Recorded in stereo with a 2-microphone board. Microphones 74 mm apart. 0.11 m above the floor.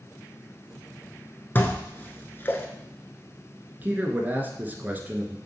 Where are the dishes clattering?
30° left (ahead or behind), 0.9 m.